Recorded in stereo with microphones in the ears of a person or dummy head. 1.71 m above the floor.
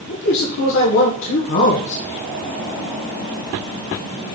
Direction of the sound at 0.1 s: 70° left (ahead or behind).